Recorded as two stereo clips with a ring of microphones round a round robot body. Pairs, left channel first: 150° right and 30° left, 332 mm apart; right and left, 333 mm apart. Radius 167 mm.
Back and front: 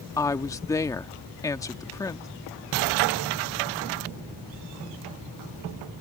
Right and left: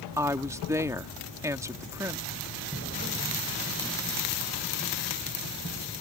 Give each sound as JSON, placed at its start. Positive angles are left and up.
{"t": 0.2, "sound": "a woman speaking", "azimuth_deg": 150}